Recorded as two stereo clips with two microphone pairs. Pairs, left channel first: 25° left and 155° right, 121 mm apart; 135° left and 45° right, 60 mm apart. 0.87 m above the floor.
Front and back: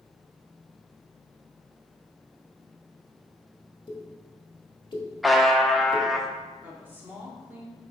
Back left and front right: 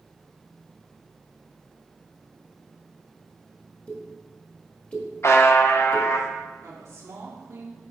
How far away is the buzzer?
About 0.7 m.